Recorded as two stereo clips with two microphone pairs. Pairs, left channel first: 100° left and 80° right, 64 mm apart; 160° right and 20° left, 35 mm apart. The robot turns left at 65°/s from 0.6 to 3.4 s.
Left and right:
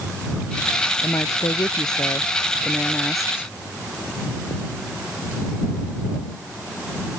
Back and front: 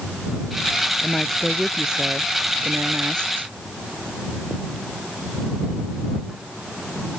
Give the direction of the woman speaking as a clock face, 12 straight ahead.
7 o'clock.